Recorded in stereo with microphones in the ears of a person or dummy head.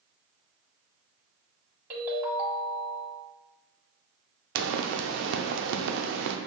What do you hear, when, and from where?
1.9 s a ringtone: 10° right (ahead or behind), 1.7 m
4.5 s a pop: 70° right (ahead or behind), 0.6 m